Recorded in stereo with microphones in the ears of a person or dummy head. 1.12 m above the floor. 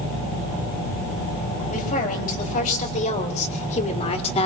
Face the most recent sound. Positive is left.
turn(degrees=35)  # may be behind; listen again after turning